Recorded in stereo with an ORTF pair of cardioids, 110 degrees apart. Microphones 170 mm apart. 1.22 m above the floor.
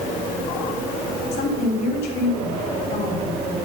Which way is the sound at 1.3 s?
70° left.